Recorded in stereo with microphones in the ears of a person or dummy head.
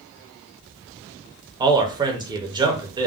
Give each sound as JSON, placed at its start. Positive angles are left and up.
{"t": 1.6, "sound": "a man speaking", "side_deg": -20, "distance_m": 0.6}